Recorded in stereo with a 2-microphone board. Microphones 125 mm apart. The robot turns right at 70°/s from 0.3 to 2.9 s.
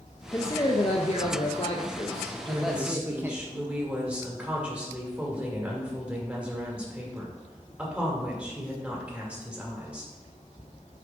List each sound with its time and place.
0.3 s a man speaking: 20° left, 0.6 m; by 3.4 s 160° right, 0.6 m
2.4 s a woman speaking: 45° right, 2 m; by 10.1 s 10° right, 2 m